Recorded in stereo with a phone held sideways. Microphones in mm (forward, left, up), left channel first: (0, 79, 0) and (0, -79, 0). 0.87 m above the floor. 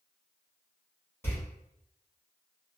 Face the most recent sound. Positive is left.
turn(degrees=15)  # may be behind; listen again after turning